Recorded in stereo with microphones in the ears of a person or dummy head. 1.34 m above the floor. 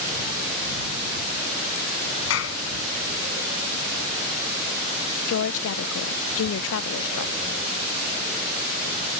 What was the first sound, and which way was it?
A clap, 75° left (ahead or behind).